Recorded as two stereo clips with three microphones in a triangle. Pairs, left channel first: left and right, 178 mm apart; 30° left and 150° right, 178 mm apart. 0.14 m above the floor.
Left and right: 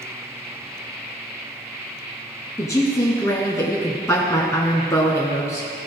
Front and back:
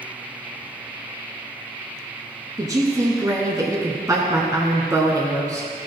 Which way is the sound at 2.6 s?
150° left.